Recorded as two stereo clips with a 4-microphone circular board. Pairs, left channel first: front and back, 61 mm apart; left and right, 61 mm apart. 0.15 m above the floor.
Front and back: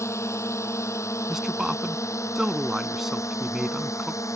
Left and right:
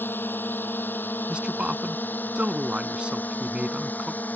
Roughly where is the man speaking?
Right.